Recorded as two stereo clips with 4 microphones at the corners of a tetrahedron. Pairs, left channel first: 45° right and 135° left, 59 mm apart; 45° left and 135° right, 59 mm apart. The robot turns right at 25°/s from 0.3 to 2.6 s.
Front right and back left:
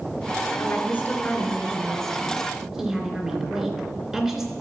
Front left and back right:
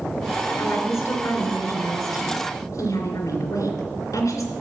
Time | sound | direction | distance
0.6 | a woman speaking | 5° left | 3 m